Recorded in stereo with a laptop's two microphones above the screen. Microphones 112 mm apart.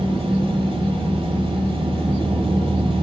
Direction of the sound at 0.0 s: 55° right (ahead or behind).